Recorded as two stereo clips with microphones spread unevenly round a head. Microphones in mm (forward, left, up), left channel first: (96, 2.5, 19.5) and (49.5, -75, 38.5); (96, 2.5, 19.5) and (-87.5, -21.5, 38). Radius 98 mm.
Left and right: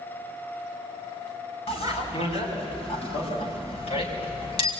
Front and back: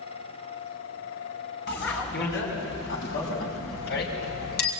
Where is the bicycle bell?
50° left, 7.5 m.